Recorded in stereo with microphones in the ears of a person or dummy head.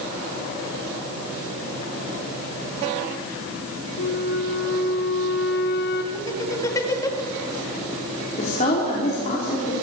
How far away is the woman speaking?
About 4.5 m.